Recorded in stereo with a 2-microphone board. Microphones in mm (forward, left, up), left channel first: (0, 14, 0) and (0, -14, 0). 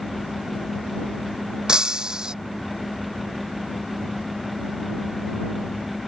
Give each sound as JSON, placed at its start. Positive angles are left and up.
{"t": 1.7, "sound": "breaking glass", "side_deg": -30}